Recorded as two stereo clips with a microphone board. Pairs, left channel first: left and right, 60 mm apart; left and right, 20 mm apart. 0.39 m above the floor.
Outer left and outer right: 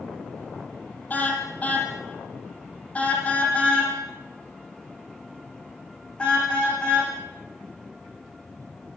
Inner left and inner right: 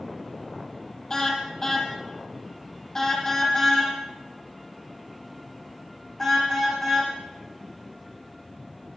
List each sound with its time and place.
1.1 s a car horn: 25° left (ahead or behind), 6.5 m; by 7.1 s 15° left (ahead or behind), 13 m